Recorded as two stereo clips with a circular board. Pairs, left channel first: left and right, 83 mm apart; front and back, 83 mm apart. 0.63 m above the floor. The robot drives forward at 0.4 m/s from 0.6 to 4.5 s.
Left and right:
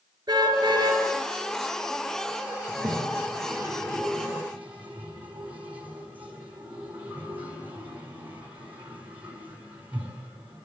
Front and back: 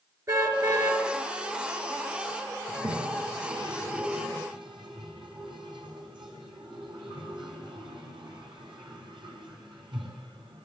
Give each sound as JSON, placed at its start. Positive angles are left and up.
{"t": 0.3, "sound": "a car horn", "azimuth_deg": -130, "distance_m": 4.5}
{"t": 2.7, "sound": "a toilet flushing", "azimuth_deg": -160, "distance_m": 4.5}